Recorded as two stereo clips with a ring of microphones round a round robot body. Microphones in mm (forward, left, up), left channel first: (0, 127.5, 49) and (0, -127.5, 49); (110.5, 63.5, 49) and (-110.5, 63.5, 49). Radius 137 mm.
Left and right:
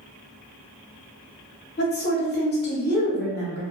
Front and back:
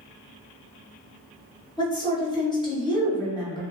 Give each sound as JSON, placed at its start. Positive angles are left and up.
{"t": 1.8, "sound": "a woman speaking", "azimuth_deg": 60, "distance_m": 1.1}